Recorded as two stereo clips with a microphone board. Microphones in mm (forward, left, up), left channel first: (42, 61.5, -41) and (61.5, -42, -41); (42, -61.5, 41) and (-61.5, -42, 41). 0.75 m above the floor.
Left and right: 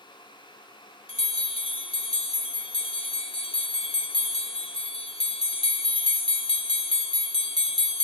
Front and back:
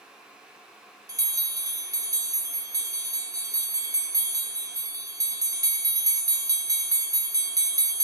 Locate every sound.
1.1 s a bell: 115° left, 0.8 m